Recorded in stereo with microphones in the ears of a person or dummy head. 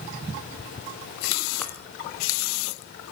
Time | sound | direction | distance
1.6 | a chime | 10° left (ahead or behind) | 2.5 m